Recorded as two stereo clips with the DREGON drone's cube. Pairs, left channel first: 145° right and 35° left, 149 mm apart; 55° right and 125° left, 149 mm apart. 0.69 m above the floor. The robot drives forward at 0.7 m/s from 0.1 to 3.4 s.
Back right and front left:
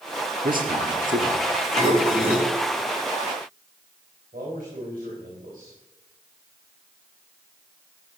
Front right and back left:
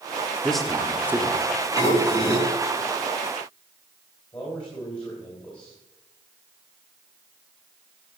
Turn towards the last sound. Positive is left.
turn(degrees=5)